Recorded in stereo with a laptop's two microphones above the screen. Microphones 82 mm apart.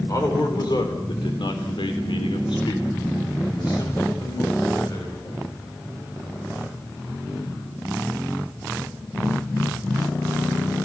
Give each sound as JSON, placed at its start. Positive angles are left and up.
{"t": 0.1, "sound": "a man speaking", "side_deg": 45, "distance_m": 3.0}